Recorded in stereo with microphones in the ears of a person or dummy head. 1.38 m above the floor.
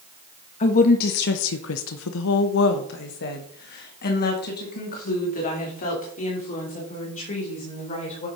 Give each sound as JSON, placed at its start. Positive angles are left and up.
{"t": 0.6, "sound": "a woman speaking", "side_deg": 40, "distance_m": 1.0}